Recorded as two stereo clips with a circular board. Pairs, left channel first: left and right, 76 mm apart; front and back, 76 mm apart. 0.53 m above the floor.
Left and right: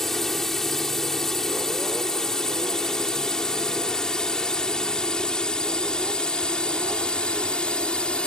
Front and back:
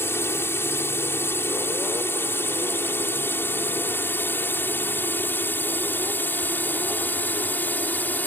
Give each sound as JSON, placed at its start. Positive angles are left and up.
{"t": 0.0, "sound": "a drone", "azimuth_deg": 10}